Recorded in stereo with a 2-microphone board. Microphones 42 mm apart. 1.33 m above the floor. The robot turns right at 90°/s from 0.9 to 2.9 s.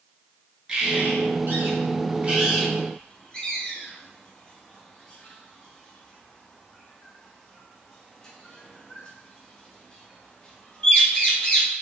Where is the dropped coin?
I don't hear a dropped coin.